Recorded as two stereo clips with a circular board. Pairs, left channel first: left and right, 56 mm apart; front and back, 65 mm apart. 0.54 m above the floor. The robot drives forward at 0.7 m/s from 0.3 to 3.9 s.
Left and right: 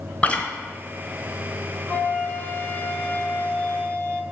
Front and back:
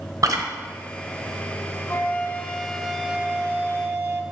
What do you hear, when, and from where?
0.2 s chewing: 155° left, 1.2 m
1.9 s a flute: 40° left, 1.1 m; by 4.2 s 145° left, 1.2 m